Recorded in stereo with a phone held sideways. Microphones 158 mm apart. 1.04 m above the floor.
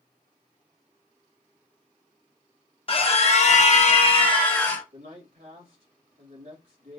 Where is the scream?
40° left (ahead or behind), 1.1 m; by 4.8 s 20° left (ahead or behind), 1.2 m.